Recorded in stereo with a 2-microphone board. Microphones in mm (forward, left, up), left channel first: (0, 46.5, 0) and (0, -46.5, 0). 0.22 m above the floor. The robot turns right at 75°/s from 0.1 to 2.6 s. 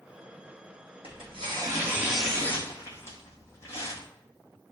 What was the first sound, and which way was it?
Tearing paper, 90° right.